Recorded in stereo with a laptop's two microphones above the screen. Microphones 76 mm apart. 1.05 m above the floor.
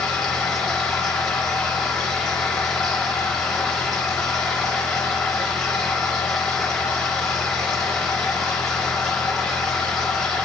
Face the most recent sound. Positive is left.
turn(degrees=10)  # may be behind; listen again after turning